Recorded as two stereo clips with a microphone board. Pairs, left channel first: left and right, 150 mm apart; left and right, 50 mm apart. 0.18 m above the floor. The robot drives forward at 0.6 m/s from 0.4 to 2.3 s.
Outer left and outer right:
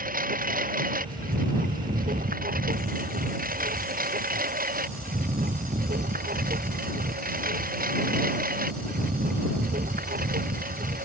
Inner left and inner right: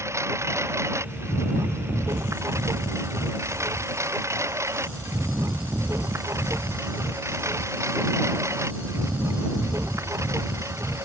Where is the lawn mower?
65° right (ahead or behind); by 11.1 s 70° right (ahead or behind).